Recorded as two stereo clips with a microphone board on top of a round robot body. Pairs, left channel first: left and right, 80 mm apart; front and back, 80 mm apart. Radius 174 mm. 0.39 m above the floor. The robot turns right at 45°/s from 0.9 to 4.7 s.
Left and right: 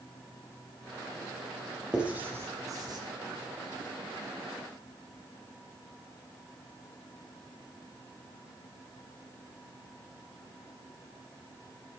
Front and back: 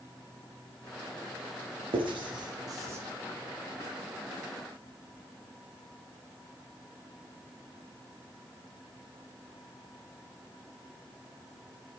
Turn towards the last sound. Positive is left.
turn(degrees=-45)